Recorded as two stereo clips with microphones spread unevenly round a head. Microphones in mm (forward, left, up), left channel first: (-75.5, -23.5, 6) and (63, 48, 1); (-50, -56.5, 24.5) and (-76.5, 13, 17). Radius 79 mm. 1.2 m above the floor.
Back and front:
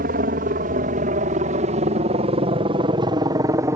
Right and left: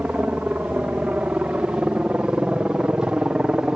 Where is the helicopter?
35° left; by 3.8 s 60° left.